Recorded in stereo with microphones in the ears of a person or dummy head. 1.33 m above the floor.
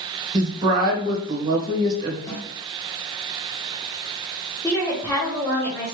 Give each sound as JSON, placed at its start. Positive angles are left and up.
{"t": 0.3, "sound": "a woman speaking", "side_deg": -25, "distance_m": 1.2}
{"t": 2.3, "sound": "a snare drum", "side_deg": 15, "distance_m": 1.2}
{"t": 4.6, "sound": "a woman speaking", "side_deg": 5, "distance_m": 1.1}